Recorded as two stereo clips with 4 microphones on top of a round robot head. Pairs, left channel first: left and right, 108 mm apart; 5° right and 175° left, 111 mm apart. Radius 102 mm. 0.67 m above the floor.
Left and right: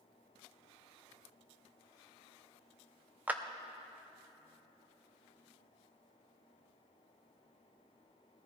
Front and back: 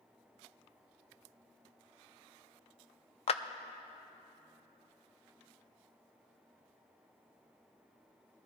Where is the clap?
15° right, 0.5 m.